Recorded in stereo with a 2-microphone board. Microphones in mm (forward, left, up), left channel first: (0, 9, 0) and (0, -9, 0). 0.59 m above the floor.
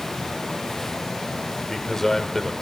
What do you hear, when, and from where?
1.6 s a man speaking: 20° left (ahead or behind), 2.5 m